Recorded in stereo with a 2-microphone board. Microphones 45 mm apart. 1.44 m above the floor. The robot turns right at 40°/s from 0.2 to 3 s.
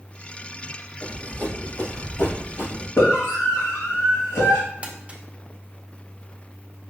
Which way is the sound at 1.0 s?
35° left (ahead or behind).